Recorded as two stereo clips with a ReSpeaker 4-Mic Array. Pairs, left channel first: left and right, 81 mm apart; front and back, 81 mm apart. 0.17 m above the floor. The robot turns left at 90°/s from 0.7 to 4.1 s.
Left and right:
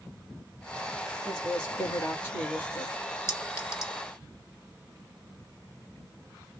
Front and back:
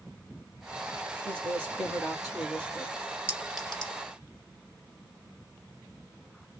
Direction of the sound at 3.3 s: 125° left.